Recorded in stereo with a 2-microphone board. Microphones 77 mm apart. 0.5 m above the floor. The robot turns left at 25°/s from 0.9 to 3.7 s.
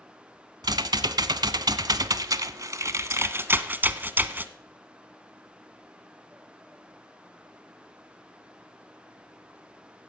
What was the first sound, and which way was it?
Typing on a keyboard, 80° right.